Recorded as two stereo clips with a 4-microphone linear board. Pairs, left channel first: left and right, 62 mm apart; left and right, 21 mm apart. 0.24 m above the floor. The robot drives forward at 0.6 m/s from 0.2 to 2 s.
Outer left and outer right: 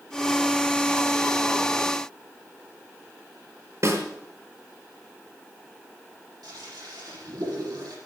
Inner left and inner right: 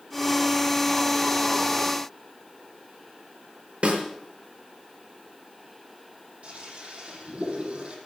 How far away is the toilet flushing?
About 6.5 m.